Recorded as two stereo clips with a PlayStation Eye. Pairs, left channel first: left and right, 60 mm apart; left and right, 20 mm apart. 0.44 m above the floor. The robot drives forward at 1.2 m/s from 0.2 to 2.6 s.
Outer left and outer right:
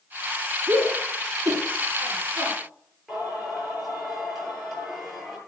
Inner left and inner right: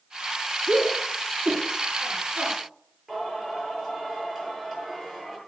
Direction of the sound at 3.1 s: Centre (ahead or behind).